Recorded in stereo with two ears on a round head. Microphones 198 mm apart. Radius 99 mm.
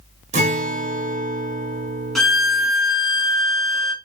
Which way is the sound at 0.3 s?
30° right (ahead or behind).